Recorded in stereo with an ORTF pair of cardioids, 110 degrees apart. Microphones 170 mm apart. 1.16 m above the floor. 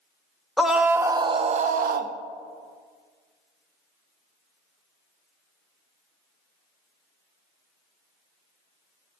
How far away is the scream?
About 0.9 m.